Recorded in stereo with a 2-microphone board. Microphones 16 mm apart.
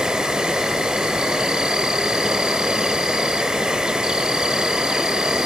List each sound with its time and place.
0.0 s an insect: 70° right (ahead or behind), 1.2 m